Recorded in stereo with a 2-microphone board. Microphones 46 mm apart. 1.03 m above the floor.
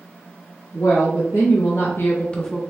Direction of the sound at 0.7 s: 80° left.